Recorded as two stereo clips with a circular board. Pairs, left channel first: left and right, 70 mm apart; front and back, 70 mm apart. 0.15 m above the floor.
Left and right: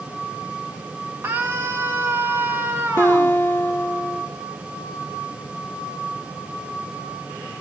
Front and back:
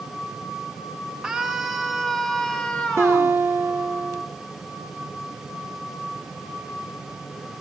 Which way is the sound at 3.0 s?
140° left.